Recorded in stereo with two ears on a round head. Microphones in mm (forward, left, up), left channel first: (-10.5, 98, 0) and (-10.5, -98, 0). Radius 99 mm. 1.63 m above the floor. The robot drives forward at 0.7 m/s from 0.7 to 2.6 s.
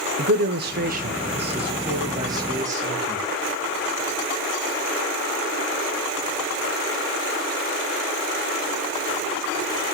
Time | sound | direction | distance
0.2 | a man speaking | 45° right (ahead or behind) | 0.7 m